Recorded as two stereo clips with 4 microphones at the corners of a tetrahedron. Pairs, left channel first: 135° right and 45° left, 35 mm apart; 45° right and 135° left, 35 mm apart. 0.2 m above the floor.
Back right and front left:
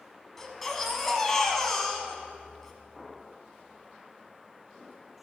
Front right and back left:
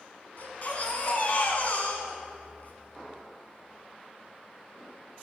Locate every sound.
0.4 s a baby crying: 55° right, 1.0 m